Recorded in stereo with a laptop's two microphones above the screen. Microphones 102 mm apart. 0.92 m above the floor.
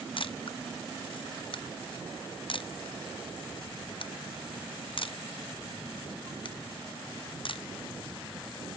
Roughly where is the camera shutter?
Left.